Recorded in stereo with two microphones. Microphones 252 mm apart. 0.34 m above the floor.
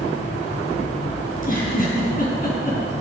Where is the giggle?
35° left (ahead or behind), 3 m.